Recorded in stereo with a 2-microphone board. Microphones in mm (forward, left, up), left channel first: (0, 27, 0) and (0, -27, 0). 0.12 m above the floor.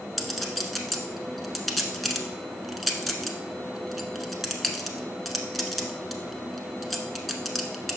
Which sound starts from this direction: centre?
A clink, at 0.2 s.